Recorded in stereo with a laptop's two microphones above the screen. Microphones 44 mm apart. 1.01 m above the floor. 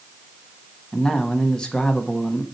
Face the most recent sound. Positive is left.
turn(degrees=20)  # may be behind; listen again after turning